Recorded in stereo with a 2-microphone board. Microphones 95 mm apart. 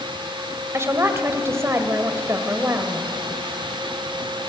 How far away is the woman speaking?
About 1.6 m.